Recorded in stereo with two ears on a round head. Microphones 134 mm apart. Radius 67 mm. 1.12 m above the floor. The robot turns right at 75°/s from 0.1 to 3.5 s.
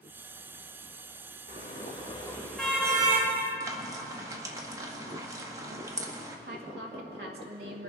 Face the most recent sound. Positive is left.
turn(degrees=-75)  # may be behind; listen again after turning